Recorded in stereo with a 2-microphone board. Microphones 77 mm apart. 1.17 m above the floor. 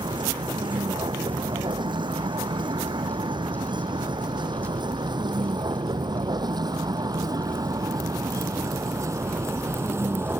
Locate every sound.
0.0 s a vehicle: 85° right; by 10.4 s 30° right (ahead or behind)